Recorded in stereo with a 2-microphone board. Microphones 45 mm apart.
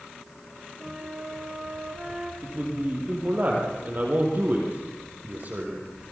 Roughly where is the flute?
Centre.